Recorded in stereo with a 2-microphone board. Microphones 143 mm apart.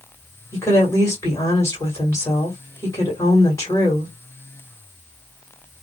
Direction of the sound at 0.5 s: 20° left (ahead or behind).